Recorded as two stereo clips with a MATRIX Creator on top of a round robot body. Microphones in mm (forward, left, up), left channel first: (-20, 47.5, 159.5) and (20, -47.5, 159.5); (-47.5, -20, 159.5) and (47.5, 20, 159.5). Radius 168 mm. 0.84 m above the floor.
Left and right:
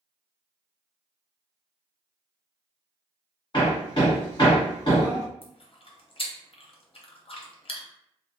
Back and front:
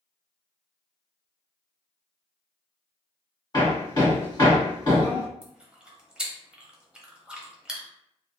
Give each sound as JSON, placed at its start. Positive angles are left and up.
{"t": 3.5, "sound": "hammering", "azimuth_deg": 155, "distance_m": 1.6}
{"t": 5.4, "sound": "chewing", "azimuth_deg": 105, "distance_m": 0.8}